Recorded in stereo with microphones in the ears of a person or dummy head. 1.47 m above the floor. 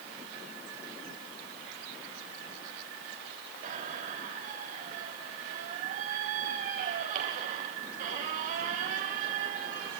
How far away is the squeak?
About 3 m.